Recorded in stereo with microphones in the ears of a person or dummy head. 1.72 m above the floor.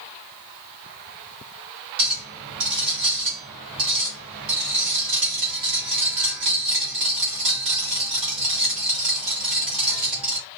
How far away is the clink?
About 1.2 m.